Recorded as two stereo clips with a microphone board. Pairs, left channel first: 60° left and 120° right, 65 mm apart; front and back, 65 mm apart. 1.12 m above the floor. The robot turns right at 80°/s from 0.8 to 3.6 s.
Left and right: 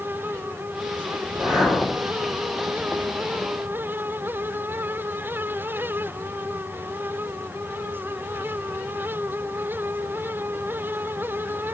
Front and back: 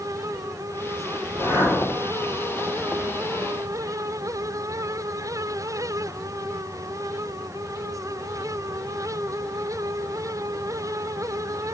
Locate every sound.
1.2 s a whoosh: 40° right, 3.5 m; by 2.0 s 25° left, 3.5 m